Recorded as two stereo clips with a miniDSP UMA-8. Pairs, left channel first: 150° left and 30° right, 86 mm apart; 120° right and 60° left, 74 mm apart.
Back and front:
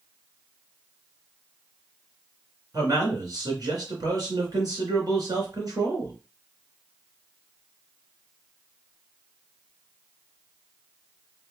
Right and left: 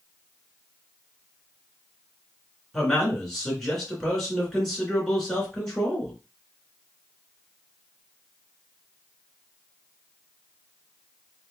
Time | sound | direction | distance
2.7 | a man speaking | 35° right | 2.5 m